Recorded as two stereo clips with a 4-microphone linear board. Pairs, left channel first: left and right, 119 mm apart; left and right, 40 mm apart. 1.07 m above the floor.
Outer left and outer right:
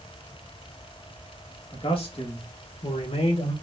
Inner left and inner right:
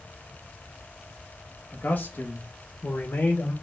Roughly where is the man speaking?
Left.